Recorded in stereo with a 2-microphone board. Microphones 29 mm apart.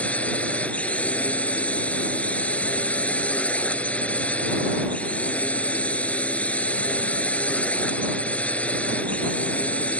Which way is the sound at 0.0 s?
55° left (ahead or behind).